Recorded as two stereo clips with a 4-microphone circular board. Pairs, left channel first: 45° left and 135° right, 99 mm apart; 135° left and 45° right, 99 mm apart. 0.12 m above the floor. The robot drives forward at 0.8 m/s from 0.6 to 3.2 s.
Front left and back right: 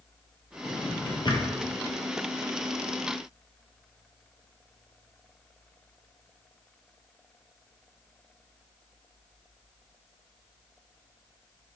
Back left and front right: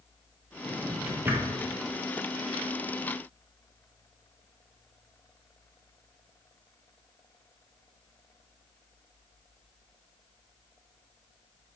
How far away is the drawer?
About 2 m.